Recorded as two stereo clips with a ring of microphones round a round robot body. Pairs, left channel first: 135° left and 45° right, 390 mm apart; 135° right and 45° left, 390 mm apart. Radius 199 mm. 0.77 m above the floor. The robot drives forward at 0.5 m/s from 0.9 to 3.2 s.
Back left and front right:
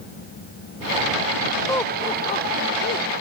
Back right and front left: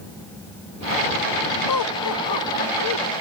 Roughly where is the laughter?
Behind right.